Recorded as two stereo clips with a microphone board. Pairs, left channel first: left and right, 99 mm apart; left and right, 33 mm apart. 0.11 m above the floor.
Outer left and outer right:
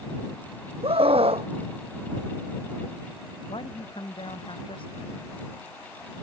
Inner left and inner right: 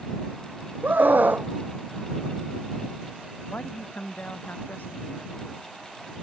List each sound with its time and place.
0.8 s a scream: 75° right (ahead or behind)
3.5 s a man speaking: 60° left (ahead or behind)